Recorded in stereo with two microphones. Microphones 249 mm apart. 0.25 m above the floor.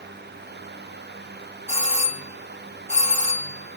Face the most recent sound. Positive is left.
turn(degrees=25)  # may be behind; listen again after turning